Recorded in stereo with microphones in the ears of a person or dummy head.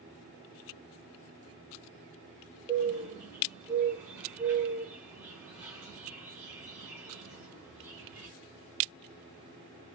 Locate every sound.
2.7 s a bird: 15° right (ahead or behind), 1.0 m